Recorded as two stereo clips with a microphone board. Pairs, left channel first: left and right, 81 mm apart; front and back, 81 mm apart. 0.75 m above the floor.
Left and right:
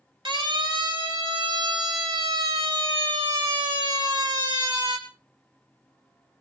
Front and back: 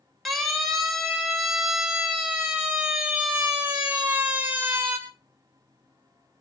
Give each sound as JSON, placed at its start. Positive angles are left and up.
{"t": 0.2, "sound": "a siren", "azimuth_deg": -90, "distance_m": 5.0}